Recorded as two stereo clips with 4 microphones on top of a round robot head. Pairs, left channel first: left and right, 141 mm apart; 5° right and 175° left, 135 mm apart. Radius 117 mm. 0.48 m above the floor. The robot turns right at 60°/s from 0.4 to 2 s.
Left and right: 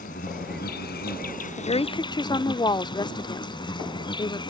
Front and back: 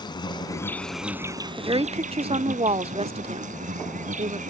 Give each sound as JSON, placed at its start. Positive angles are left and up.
{"t": 0.0, "sound": "an insect", "azimuth_deg": 50}
{"t": 1.6, "sound": "a woman speaking", "azimuth_deg": 115}